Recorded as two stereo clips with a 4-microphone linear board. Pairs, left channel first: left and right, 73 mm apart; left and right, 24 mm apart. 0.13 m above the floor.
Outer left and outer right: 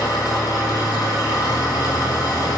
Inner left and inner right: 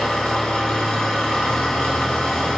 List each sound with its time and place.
0.0 s an engine running: 60° left (ahead or behind), 1.4 m